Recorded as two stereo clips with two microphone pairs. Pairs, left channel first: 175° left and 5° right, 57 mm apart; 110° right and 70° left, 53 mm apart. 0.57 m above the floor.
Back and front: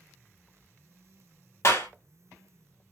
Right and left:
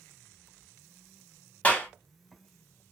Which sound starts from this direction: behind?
A clap, at 1.6 s.